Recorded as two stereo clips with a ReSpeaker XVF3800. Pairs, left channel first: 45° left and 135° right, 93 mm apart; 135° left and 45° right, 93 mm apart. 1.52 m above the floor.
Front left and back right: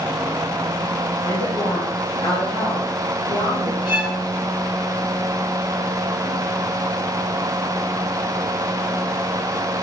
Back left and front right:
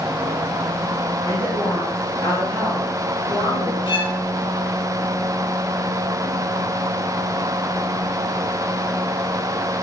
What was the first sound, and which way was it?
A woman speaking, 70° left.